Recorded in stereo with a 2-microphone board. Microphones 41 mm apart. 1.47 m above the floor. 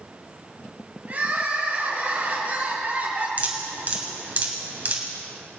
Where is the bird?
I don't hear a bird.